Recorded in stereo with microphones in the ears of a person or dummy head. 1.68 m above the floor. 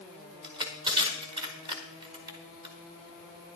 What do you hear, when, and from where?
0.4 s crushing: 25° right (ahead or behind), 1.6 m